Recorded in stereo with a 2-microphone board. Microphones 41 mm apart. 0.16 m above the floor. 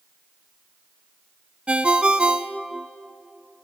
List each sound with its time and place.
1.7 s a ringtone: 30° right (ahead or behind), 0.7 m